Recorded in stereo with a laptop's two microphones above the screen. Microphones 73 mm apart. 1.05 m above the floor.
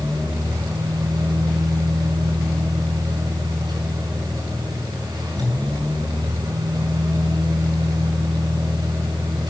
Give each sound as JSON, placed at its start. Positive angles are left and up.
{"t": 0.0, "sound": "a fan", "side_deg": -75, "distance_m": 6.0}